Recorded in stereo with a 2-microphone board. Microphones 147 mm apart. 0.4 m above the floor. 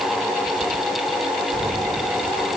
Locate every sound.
Only background noise.